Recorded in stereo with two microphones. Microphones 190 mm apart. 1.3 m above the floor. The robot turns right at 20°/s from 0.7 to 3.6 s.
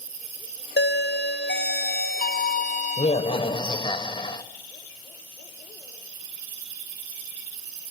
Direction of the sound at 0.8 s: 95° left.